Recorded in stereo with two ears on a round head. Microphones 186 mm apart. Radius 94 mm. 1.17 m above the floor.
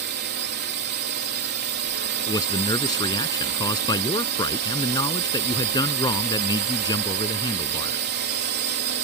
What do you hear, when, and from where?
0.0 s a drone: 60° right (ahead or behind)
2.3 s a man speaking: 20° left (ahead or behind)